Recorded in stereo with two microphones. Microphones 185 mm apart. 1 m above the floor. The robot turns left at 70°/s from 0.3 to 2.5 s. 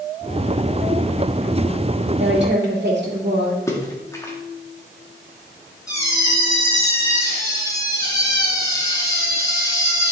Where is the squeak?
20° left (ahead or behind), 3.5 m.